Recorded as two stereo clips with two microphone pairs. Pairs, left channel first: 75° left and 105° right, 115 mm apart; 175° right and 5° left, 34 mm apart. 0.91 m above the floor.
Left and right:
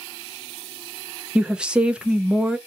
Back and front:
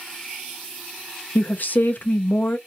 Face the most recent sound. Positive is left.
turn(degrees=170)